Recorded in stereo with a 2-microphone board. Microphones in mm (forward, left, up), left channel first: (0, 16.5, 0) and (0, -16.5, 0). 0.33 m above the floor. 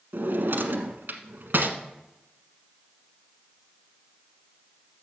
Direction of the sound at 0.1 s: 80° right.